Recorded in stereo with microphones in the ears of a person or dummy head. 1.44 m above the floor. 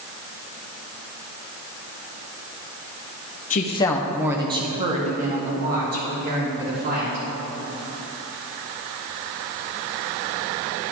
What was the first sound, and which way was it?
A woman speaking, 45° left (ahead or behind).